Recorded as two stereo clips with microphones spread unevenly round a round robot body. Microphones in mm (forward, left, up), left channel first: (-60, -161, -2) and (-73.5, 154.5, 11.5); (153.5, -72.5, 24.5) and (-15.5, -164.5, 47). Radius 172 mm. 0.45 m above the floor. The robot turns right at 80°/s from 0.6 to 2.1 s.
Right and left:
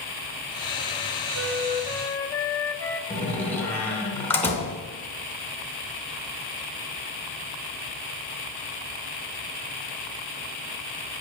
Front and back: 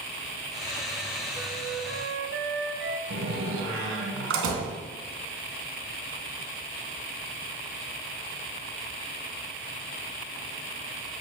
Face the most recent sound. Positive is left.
turn(degrees=-170)